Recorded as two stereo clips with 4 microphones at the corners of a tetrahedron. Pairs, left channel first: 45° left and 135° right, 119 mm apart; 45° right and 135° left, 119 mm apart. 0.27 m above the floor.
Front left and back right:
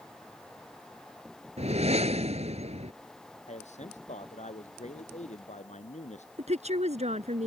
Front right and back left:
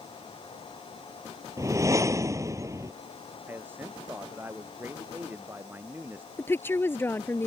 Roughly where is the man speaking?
Ahead left.